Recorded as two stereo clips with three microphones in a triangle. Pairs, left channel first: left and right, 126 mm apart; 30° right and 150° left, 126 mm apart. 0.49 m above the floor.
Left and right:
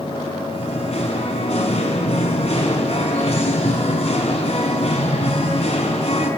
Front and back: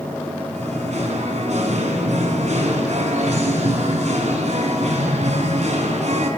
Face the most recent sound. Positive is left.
turn(degrees=125)